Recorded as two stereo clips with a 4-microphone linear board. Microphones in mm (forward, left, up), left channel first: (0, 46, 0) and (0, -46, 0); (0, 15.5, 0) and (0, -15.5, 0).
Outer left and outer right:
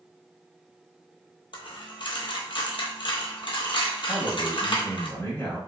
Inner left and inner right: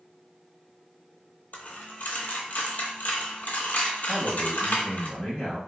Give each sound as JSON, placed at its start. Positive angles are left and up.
{"t": 1.5, "sound": "a dropped coin", "side_deg": 65, "distance_m": 0.8}
{"t": 4.1, "sound": "a man speaking", "side_deg": 30, "distance_m": 1.2}